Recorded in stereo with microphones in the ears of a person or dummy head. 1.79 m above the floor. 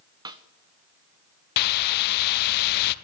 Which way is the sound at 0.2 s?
25° right (ahead or behind).